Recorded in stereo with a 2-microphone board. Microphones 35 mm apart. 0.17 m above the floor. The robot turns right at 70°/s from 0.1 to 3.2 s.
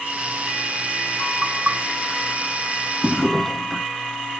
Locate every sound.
1.4 s knocking: 25° right (ahead or behind), 1.5 m; by 1.8 s 40° right (ahead or behind), 1.5 m
3.0 s a drawer: 20° left (ahead or behind), 0.6 m; by 3.9 s 10° left (ahead or behind), 0.6 m